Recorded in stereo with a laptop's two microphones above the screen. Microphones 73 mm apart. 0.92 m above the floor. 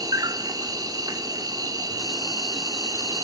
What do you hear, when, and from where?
0.0 s an insect: 60° right (ahead or behind), 0.8 m